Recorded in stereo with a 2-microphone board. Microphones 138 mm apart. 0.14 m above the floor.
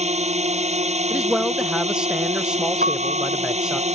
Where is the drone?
55° right (ahead or behind).